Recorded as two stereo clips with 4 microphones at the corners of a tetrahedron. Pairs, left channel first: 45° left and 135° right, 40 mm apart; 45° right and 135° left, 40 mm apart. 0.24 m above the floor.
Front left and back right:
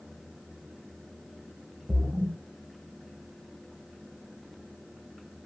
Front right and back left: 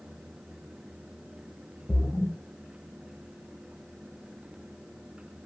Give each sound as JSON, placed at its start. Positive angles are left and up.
{"t": 1.9, "sound": "a splash", "azimuth_deg": -90, "distance_m": 0.7}